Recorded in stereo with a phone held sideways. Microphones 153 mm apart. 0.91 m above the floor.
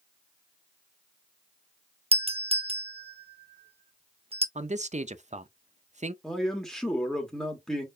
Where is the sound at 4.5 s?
50° right (ahead or behind), 0.6 m.